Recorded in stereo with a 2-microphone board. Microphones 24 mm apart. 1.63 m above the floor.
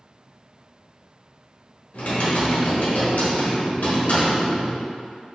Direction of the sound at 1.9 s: 85° left.